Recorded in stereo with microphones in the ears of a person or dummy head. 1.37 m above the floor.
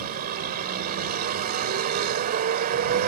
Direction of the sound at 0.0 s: 50° right (ahead or behind).